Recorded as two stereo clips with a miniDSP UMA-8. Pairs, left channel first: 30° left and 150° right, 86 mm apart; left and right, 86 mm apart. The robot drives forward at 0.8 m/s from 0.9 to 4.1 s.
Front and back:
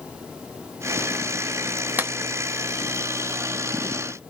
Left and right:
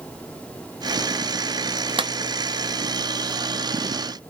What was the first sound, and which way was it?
A clap, 85° right.